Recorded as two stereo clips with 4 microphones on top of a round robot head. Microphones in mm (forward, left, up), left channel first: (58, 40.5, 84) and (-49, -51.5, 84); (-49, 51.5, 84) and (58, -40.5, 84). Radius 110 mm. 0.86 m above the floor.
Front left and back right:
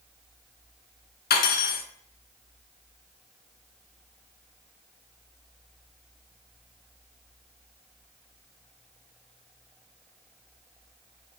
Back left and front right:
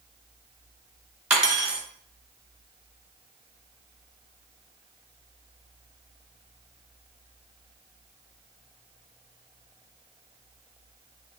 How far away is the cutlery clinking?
About 1.3 m.